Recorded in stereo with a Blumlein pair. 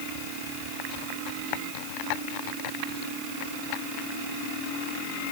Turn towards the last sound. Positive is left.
No sound to turn to.